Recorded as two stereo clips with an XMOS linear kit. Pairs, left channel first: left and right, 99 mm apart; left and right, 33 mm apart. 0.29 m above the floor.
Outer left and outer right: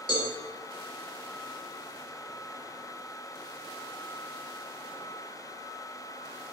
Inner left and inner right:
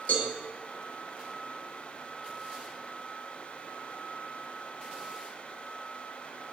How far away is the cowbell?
About 6 m.